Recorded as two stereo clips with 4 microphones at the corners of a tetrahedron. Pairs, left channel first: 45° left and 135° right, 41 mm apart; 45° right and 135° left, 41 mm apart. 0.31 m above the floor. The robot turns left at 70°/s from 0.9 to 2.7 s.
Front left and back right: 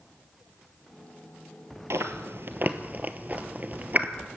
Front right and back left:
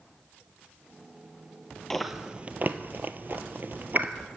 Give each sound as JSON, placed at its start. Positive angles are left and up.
{"t": 1.9, "sound": "chewing", "azimuth_deg": -125, "distance_m": 1.0}